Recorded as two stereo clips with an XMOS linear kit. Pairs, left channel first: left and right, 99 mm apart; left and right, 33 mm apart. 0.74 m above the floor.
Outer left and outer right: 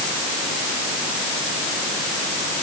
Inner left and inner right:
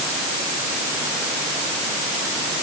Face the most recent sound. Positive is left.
No sound to turn to.